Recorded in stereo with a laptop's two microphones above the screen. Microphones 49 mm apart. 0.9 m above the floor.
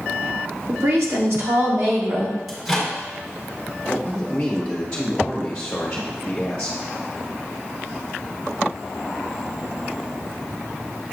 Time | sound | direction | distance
0.7 | a woman speaking | 65° right (ahead or behind) | 1.0 m
2.5 | a microwave | 10° right (ahead or behind) | 1.2 m
3.9 | a man speaking | 10° left (ahead or behind) | 0.9 m